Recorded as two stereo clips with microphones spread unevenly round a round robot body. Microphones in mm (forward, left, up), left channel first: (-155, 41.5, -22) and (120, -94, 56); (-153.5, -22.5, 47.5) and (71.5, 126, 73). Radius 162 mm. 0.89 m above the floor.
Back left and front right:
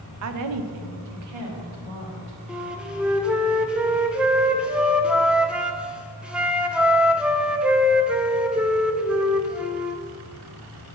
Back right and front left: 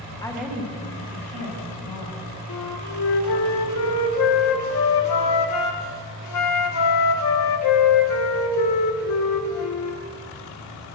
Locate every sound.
0.2 s a woman speaking: 75° right, 0.8 m; by 2.4 s 5° left, 2.5 m
2.5 s a flute: 105° right, 0.6 m